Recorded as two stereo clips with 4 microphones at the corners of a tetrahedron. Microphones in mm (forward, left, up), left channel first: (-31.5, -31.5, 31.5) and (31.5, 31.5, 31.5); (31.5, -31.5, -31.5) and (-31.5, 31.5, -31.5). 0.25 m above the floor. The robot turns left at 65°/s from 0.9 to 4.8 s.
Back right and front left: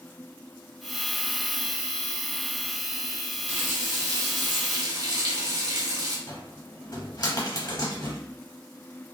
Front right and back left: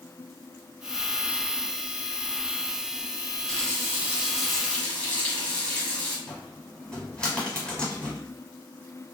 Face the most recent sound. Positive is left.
turn(degrees=-120)